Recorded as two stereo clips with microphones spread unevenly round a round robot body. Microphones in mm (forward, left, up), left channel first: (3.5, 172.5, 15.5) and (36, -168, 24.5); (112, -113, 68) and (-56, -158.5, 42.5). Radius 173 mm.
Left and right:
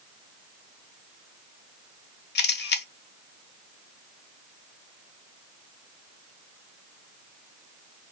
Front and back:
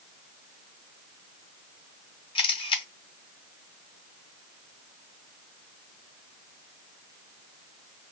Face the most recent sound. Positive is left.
turn(degrees=70)